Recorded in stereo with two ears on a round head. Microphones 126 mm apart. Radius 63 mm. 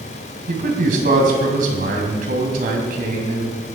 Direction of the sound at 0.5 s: 65° right (ahead or behind).